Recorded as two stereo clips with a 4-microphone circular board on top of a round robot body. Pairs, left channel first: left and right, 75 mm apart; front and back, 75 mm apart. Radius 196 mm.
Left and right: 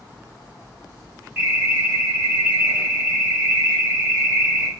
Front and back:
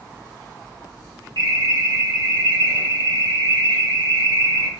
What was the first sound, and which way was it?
An alarm, 165° right.